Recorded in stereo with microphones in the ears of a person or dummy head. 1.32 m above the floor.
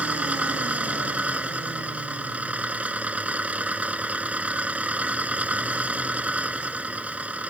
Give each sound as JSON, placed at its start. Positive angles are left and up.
{"t": 0.0, "sound": "an engine running", "side_deg": -5}